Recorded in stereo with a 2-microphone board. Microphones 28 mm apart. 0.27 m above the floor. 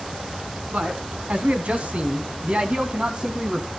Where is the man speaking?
60° right (ahead or behind), 1.9 m; by 3.7 s 25° right (ahead or behind), 1.9 m.